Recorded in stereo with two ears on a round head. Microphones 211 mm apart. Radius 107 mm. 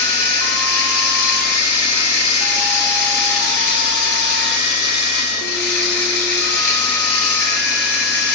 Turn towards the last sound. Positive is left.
turn(degrees=70)  # may be behind; listen again after turning